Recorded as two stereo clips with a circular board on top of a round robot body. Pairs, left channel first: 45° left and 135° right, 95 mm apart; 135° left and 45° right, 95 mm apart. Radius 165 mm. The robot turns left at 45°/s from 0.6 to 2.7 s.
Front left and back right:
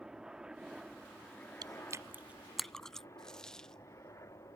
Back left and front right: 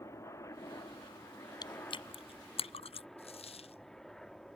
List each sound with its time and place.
0.0 s a helicopter: 150° left; by 4.6 s 55° left
1.6 s chewing: straight behind; by 3.1 s 130° left
3.2 s a dropped coin: 130° left